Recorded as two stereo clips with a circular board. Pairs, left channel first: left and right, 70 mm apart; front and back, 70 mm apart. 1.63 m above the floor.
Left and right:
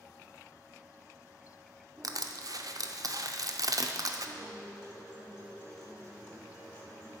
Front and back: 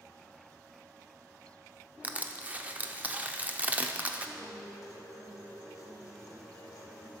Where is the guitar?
35° left, 2.5 m.